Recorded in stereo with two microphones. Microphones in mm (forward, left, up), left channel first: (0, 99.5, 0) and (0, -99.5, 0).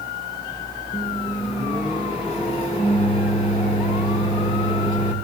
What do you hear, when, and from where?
0.9 s a microwave: 35° left (ahead or behind), 2.5 m